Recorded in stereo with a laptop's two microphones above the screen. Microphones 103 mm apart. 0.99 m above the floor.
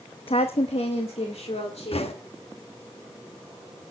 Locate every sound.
0.3 s a woman speaking: 65° left (ahead or behind), 0.8 m; by 2.2 s 85° left, 3 m
1.9 s knocking: 75° left (ahead or behind), 1.0 m